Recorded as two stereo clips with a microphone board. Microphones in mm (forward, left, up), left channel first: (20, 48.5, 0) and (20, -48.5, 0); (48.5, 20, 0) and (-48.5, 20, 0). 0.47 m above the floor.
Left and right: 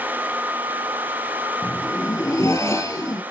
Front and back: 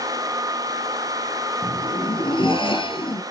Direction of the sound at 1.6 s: 35° left.